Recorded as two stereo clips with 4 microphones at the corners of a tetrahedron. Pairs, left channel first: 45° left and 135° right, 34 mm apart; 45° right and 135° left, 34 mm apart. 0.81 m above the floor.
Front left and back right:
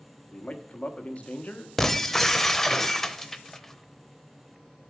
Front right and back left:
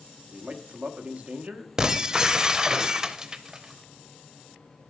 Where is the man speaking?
90° left, 1.0 m.